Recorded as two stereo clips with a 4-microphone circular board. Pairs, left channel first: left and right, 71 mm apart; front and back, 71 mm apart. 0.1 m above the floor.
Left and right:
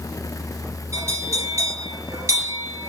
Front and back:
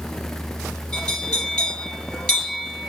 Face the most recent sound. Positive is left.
turn(degrees=-75)